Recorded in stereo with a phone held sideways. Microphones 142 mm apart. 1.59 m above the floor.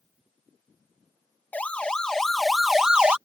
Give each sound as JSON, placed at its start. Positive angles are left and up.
{"t": 1.5, "sound": "a siren", "side_deg": 10}